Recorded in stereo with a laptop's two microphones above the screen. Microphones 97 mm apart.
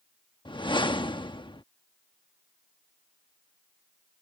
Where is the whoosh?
50° left (ahead or behind).